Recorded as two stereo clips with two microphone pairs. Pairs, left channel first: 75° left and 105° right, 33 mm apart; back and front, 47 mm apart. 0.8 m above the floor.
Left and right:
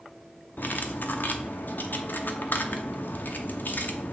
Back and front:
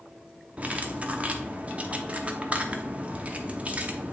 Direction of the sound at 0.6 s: 60° left.